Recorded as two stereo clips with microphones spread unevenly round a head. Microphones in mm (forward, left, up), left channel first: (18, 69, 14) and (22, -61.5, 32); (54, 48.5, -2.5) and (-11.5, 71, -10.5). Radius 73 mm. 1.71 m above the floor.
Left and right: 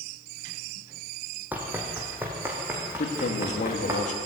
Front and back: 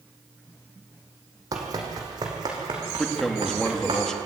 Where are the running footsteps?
160° right, 3 m.